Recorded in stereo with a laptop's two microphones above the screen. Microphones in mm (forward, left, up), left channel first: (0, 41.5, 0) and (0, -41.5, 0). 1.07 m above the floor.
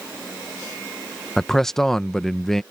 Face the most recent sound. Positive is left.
turn(degrees=5)  # may be behind; listen again after turning